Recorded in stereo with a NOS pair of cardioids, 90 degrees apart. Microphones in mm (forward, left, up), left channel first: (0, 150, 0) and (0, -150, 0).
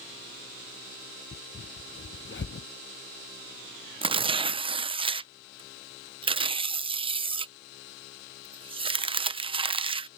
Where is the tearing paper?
20° right.